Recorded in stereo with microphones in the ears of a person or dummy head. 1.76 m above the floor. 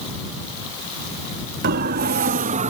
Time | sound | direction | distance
1.6 | a siren | 60° right (ahead or behind) | ?